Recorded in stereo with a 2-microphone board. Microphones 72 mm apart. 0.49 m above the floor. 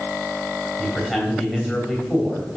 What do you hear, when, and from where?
0.8 s a man speaking: centre (ahead or behind), 3 m